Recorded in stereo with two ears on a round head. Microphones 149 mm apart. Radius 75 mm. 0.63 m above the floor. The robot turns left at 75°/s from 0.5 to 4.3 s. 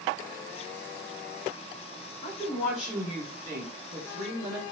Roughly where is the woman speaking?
Ahead left.